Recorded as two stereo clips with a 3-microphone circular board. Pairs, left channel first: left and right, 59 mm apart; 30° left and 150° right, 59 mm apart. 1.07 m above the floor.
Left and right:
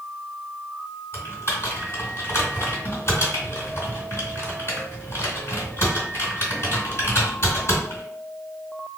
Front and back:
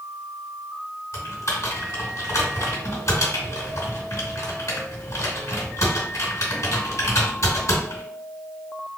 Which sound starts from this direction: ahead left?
Typing on a keyboard, at 1.1 s.